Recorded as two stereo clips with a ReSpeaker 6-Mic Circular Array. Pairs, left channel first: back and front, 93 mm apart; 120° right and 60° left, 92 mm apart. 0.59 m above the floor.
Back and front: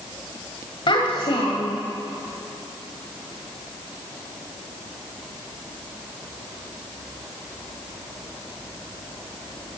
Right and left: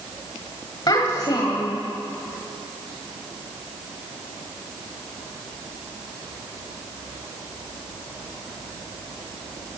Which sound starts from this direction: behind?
A child speaking, at 0.9 s.